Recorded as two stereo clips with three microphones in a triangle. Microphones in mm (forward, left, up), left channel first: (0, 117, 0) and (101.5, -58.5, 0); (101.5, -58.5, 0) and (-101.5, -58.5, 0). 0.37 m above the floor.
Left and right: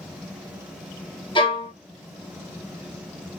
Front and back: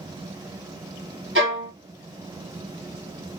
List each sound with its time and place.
1.4 s a violin: 175° right, 1.4 m